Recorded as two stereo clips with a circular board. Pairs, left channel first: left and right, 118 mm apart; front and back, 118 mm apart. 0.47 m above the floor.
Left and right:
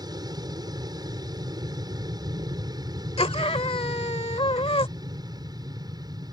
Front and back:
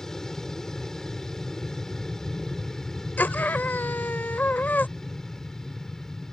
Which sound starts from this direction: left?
A scream, at 3.2 s.